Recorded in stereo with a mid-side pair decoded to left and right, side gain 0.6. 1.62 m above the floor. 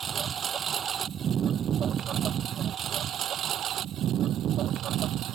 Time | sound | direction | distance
0.0 | a lawn mower | 40° right | ?